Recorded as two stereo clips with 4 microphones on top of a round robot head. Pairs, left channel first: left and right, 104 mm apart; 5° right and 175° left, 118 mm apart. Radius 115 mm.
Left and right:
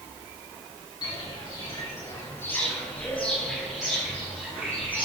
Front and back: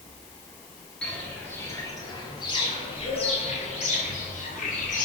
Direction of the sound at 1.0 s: 70° left.